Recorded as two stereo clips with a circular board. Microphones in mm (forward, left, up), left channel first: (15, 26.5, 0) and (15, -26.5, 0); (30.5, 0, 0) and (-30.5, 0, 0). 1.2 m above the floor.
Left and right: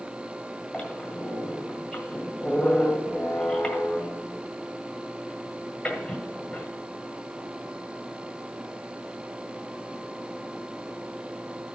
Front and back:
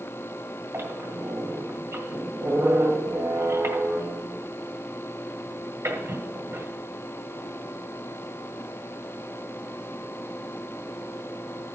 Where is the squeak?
160° left, 1.6 m.